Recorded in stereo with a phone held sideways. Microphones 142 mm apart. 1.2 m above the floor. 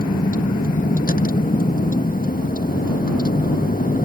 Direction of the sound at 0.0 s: 80° left.